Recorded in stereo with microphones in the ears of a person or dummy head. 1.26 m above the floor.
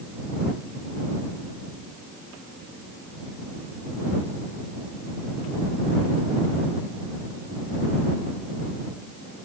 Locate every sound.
Only background noise.